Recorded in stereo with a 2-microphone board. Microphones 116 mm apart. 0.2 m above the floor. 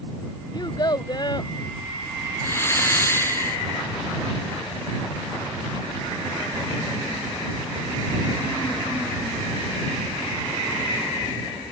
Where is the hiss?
20° left (ahead or behind).